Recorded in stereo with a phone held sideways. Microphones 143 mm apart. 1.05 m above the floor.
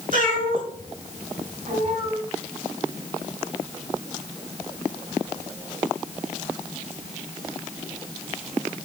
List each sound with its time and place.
0.1 s a cat meowing: 65° right (ahead or behind), 5 m; by 2.2 s 55° right (ahead or behind), 3.5 m